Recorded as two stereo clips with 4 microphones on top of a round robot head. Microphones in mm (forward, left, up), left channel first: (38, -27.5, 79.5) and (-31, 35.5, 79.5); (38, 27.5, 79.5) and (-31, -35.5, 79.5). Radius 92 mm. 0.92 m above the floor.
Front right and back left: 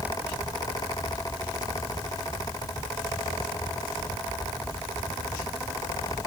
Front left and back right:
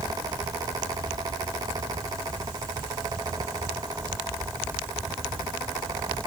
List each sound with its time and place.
Only background noise.